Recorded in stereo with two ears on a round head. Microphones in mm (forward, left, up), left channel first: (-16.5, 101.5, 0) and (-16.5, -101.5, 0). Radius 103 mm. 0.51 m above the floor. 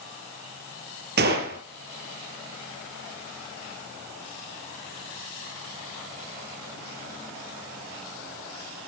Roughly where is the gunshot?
Right.